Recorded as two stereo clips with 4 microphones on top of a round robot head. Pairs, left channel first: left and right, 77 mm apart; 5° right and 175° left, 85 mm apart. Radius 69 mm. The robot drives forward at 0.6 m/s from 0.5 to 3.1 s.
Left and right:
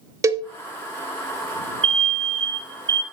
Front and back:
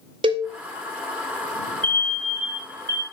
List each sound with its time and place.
0.2 s a cowbell: 140° right, 0.9 m
1.8 s an alarm: 75° right, 0.8 m; by 3.0 s 125° right, 0.9 m